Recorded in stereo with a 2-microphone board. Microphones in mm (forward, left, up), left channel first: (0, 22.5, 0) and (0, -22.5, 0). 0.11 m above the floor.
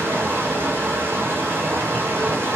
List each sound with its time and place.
0.0 s running water: 60° right (ahead or behind), 0.8 m